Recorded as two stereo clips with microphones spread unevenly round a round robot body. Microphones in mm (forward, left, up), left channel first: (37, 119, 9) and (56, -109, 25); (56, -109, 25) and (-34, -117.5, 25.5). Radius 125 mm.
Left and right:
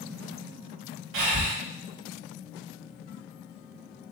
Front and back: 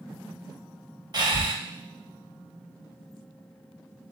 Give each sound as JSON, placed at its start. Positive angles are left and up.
{"t": 1.1, "sound": "breathing", "azimuth_deg": -130, "distance_m": 1.0}